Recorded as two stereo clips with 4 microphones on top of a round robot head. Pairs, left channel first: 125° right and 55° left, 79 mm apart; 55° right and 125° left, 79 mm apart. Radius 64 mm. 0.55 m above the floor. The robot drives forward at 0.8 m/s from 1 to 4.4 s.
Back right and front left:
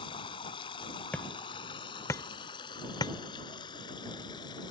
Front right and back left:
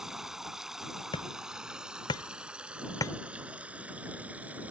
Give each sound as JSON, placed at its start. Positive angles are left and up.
{"t": 0.0, "sound": "running water", "azimuth_deg": -150}
{"t": 1.1, "sound": "hammering", "azimuth_deg": -55}